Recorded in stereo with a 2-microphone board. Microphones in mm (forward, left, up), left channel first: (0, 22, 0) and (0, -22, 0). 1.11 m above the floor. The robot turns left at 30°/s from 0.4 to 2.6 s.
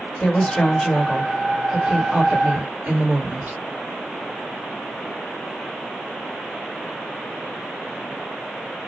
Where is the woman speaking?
20° left, 1.5 m; by 3.6 s 45° right, 1.5 m.